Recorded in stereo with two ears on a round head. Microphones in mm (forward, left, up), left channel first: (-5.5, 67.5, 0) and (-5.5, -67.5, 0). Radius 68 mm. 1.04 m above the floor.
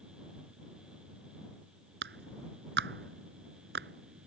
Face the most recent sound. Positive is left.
turn(degrees=-85)